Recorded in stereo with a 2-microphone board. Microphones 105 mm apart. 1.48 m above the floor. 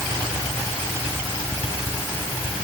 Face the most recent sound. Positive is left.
No sound to turn to.